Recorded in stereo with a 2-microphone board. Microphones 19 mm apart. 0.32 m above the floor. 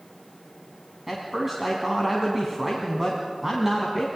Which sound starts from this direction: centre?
A man speaking, at 1.1 s.